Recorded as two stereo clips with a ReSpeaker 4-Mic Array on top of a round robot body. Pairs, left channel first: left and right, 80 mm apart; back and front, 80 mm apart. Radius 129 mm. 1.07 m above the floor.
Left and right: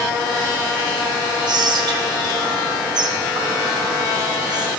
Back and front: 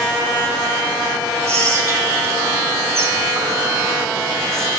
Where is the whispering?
55° right, 1.2 m.